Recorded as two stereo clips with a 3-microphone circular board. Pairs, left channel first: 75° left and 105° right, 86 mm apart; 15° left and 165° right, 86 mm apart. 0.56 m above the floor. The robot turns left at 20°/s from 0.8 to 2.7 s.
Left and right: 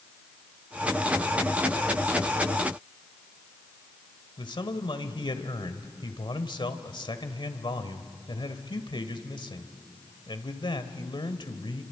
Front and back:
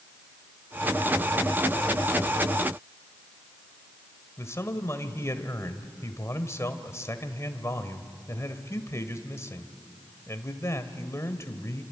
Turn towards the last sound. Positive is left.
turn(degrees=70)